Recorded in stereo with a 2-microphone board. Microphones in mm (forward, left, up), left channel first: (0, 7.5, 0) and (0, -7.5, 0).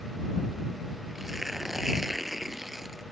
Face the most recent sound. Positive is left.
turn(degrees=-15)  # may be behind; listen again after turning